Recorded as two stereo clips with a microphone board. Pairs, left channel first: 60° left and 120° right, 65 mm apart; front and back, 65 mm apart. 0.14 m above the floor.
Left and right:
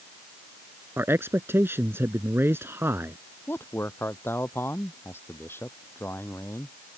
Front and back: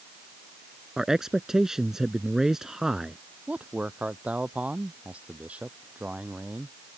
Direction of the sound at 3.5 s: 110° left.